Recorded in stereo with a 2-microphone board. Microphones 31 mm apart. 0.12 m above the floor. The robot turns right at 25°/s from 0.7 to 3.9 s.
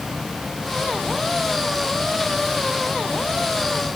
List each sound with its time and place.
Only background noise.